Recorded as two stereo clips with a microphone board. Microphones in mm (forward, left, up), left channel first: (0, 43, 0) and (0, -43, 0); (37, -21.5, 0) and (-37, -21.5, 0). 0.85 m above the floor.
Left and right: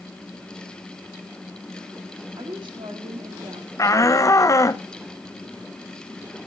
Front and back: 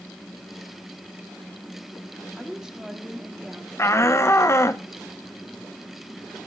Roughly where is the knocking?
I don't hear knocking.